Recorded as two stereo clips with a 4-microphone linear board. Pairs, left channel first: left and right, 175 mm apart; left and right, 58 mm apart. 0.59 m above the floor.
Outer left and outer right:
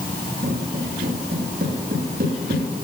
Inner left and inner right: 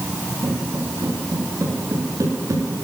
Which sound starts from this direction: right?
Footsteps, at 0.4 s.